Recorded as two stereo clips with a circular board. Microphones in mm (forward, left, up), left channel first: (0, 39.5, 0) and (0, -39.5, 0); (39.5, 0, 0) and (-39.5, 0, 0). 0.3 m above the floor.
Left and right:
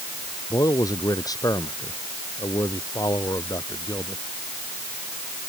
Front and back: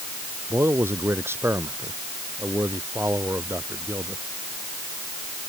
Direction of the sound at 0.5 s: 125° left.